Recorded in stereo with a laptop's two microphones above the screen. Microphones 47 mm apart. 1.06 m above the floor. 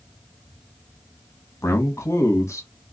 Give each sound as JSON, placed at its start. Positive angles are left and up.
{"t": 1.6, "sound": "a man speaking", "side_deg": 80, "distance_m": 1.1}